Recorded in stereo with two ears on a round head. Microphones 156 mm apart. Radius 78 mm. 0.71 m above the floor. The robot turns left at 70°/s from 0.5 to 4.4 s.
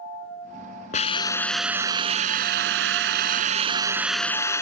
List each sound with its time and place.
0.9 s a hiss: 45° left; by 4.6 s 160° left